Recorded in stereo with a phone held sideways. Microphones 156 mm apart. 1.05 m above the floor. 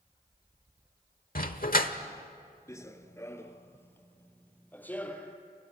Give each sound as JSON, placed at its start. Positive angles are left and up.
{"t": 1.4, "sound": "a dog barking", "side_deg": 65, "distance_m": 1.3}
{"t": 2.7, "sound": "running footsteps", "side_deg": 20, "distance_m": 1.0}